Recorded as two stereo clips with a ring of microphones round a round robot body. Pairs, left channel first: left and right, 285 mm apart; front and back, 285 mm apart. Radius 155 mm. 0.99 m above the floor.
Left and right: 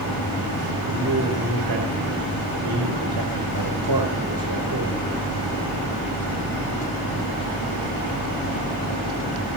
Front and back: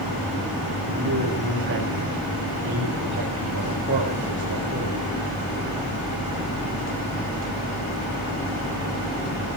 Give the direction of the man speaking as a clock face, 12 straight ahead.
4 o'clock.